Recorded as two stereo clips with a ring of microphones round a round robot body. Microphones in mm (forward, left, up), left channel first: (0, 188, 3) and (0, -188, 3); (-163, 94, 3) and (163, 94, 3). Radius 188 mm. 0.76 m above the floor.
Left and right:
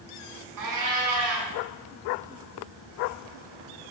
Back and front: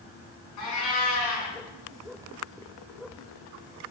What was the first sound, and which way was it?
A cat meowing, 130° right.